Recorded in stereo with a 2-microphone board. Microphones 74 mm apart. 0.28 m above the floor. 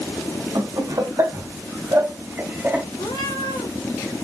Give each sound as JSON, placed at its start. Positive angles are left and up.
{"t": 0.6, "sound": "laughter", "side_deg": -60, "distance_m": 1.9}
{"t": 3.0, "sound": "a cat meowing", "side_deg": 75, "distance_m": 2.0}